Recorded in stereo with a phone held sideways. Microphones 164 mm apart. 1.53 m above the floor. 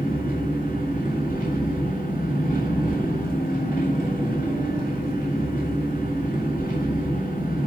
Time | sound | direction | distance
0.0 | an engine running | 60° left (ahead or behind) | 8 m